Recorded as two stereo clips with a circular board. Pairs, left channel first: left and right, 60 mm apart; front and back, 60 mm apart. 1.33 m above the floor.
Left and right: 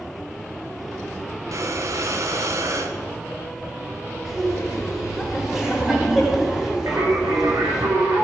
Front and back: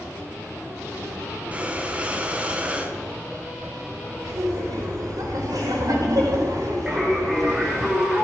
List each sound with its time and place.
1.5 s breathing: 110° right, 1.3 m
4.2 s laughter: 170° right, 4 m
6.9 s singing: 95° right, 3 m